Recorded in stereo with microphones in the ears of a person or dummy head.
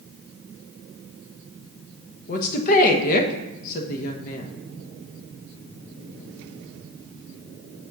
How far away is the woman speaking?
About 1.2 m.